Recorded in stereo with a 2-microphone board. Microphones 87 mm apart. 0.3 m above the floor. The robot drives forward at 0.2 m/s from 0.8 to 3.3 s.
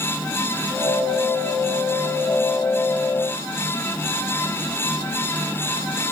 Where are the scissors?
No scissors in this recording.